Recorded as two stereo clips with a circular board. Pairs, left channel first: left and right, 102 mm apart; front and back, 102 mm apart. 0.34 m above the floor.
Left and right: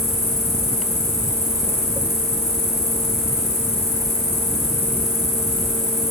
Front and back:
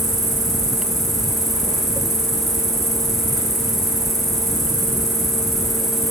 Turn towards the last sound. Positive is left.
turn(degrees=90)